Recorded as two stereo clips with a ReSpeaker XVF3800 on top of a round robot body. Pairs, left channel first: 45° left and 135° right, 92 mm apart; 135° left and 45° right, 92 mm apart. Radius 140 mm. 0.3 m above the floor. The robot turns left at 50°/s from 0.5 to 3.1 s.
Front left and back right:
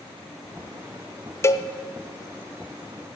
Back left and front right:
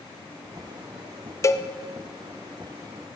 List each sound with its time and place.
1.4 s a cowbell: 95° left, 0.7 m; by 1.7 s 80° left, 0.7 m